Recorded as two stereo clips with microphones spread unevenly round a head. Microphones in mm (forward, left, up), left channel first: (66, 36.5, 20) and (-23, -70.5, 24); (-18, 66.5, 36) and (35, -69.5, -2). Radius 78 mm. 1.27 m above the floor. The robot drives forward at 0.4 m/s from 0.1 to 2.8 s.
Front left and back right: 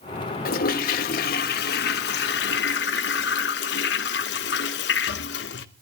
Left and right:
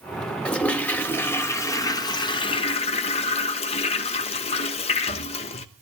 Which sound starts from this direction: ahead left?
A toilet flushing, at 0.5 s.